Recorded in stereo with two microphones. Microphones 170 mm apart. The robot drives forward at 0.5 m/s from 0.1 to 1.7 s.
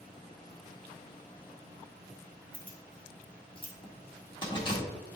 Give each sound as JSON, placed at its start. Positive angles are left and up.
{"t": 2.5, "sound": "keys jangling", "side_deg": 30, "distance_m": 1.7}